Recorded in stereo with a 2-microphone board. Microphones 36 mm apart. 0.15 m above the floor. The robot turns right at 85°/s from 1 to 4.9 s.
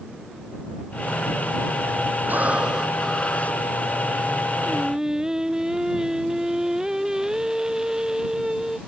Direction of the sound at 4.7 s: 5° left (ahead or behind).